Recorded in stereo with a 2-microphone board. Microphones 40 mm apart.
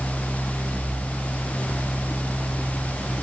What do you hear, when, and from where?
Only background noise.